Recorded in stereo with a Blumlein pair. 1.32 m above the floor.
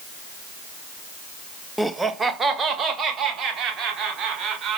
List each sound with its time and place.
1.8 s laughter: straight ahead, 0.7 m; by 4.8 s 25° right, 5.5 m